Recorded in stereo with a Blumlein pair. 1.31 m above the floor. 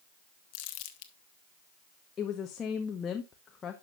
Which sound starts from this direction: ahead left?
Crumpling, at 0.5 s.